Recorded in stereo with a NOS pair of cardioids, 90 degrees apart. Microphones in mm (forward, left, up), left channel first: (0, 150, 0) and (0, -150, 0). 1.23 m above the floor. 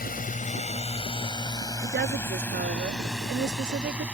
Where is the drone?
30° left; by 4.2 s 5° right.